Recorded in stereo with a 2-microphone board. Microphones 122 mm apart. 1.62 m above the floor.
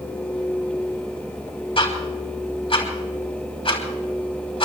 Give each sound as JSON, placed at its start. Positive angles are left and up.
{"t": 1.8, "sound": "ticking", "side_deg": 50, "distance_m": 3.0}